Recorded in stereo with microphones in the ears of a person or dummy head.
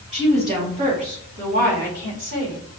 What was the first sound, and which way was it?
A woman speaking, 25° right (ahead or behind).